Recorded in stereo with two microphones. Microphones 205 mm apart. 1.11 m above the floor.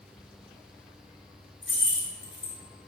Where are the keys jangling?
75° left (ahead or behind), 0.6 m.